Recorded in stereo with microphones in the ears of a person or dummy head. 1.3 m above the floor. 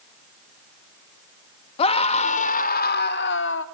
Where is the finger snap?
I don't hear a finger snap.